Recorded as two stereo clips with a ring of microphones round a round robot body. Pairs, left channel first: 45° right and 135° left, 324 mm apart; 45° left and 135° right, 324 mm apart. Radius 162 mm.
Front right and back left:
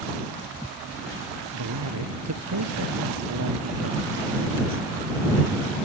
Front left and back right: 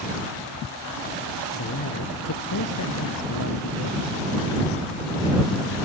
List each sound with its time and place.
1.5 s a man speaking: 95° left; by 4.8 s 80° left